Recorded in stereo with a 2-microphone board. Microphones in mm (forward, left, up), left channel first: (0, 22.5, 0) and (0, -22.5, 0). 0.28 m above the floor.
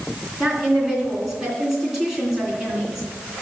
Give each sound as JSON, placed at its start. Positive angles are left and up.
{"t": 0.4, "sound": "a woman speaking", "side_deg": -10, "distance_m": 3.0}